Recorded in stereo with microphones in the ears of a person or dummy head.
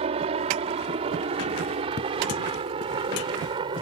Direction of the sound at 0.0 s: 35° right (ahead or behind).